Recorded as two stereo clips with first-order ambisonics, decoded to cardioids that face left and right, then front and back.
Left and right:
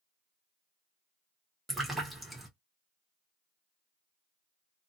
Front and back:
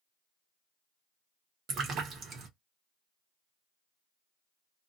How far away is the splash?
About 0.9 m.